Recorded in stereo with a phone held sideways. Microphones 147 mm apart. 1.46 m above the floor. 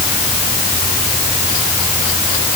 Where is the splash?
I don't hear a splash.